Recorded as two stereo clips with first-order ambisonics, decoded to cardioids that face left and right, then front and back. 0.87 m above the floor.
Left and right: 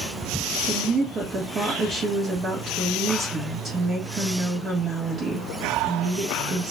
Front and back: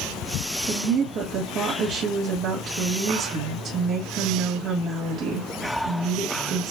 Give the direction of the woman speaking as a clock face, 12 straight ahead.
5 o'clock.